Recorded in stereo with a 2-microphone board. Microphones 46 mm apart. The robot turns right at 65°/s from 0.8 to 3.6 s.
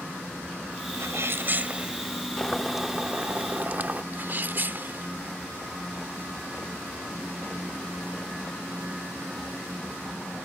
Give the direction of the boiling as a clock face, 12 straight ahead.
7 o'clock.